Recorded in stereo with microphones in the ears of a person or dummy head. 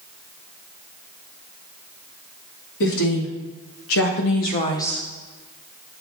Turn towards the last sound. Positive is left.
turn(degrees=0)  # may be behind; listen again after turning